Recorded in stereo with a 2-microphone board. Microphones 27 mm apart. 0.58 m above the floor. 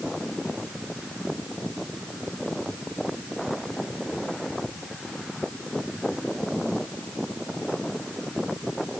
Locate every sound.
Only background noise.